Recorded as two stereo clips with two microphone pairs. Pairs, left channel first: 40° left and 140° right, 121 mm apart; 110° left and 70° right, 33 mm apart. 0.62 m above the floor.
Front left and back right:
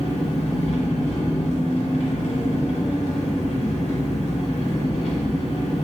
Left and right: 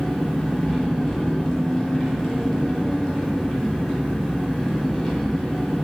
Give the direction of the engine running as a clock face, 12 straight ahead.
11 o'clock.